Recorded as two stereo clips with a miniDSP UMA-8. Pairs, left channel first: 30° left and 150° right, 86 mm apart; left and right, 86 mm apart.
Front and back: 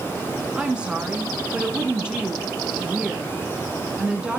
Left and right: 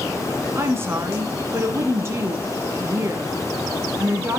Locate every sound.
0.6 s a woman speaking: 80° right, 1.1 m